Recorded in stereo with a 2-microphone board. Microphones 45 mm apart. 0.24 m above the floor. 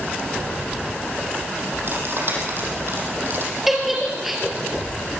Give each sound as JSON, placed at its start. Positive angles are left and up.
{"t": 1.9, "sound": "cutlery clinking", "side_deg": -55, "distance_m": 6.0}
{"t": 3.7, "sound": "a giggle", "side_deg": -5, "distance_m": 4.5}